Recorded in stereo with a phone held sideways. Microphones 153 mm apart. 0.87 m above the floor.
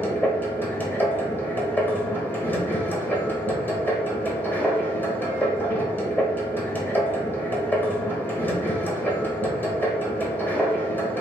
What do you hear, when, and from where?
0.0 s a machine running: 10° left (ahead or behind), 0.9 m